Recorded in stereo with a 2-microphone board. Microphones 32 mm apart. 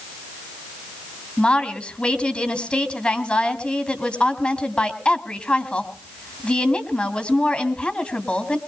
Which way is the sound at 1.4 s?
35° left (ahead or behind).